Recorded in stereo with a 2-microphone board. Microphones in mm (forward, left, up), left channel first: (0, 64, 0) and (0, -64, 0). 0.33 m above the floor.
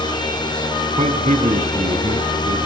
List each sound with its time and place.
1.0 s a man speaking: 60° right (ahead or behind), 2.5 m